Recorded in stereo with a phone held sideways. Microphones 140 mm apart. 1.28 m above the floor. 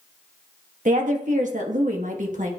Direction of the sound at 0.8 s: 75° right (ahead or behind).